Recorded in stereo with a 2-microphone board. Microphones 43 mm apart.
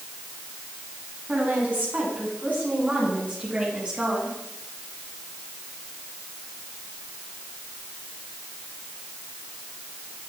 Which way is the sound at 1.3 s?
45° right (ahead or behind).